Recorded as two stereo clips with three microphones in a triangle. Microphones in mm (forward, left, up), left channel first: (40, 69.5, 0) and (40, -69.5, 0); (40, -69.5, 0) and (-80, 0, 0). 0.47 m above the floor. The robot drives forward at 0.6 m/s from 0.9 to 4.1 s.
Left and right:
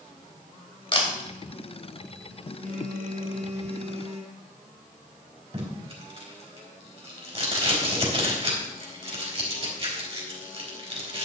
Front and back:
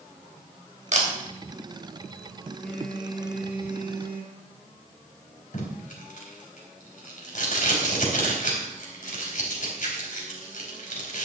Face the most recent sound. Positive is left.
turn(degrees=-45)